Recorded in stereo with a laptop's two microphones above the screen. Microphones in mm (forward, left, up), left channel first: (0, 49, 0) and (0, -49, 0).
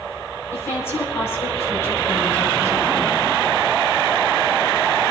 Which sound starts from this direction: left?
A woman speaking, at 0.5 s.